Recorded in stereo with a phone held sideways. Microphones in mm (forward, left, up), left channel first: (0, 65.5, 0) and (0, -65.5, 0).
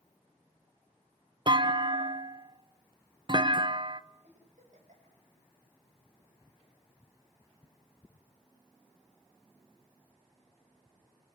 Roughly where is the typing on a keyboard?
No typing on a keyboard in this recording.